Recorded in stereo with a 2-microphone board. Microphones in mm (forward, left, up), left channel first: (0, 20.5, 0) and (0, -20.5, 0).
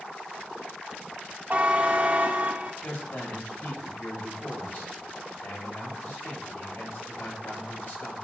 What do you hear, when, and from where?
1.5 s a buzzer: 35° right (ahead or behind), 1.1 m
2.8 s a man speaking: 70° left (ahead or behind), 5 m